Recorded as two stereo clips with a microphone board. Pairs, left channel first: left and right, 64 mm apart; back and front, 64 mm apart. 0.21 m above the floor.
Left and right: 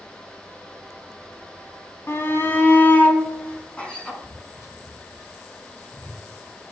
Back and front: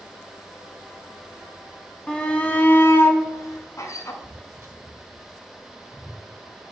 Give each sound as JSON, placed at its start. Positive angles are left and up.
{"t": 2.1, "sound": "a shout", "azimuth_deg": 115, "distance_m": 1.4}
{"t": 4.2, "sound": "footsteps", "azimuth_deg": 30, "distance_m": 1.5}